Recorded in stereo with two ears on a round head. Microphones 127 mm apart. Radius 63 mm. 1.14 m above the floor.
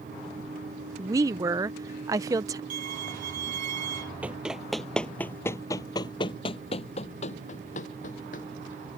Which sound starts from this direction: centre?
Running footsteps, at 4.2 s.